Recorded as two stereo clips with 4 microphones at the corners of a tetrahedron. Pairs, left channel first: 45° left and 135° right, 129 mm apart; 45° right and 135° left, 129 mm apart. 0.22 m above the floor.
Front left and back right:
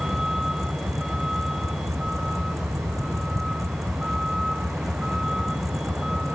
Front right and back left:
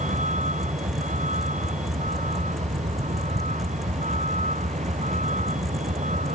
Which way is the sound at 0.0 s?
135° left.